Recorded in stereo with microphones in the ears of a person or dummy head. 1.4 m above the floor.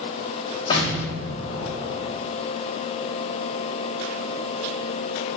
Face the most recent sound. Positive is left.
turn(degrees=30)  # may be behind; listen again after turning